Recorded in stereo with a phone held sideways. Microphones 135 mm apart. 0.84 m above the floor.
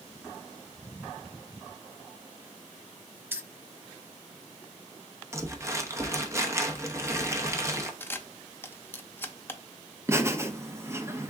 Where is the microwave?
I don't hear a microwave.